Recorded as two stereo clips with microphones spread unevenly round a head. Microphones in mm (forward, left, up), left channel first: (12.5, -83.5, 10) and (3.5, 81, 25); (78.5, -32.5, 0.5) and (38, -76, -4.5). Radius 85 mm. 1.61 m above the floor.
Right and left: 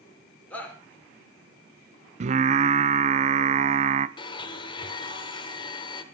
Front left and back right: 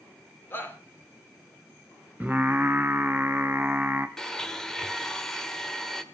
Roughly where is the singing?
Behind left.